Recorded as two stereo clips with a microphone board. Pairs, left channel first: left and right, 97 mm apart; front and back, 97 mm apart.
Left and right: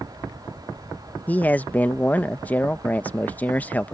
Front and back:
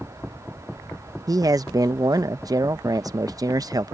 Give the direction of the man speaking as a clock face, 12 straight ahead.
7 o'clock.